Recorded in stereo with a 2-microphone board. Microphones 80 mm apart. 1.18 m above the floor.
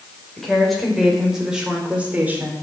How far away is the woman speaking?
About 5 m.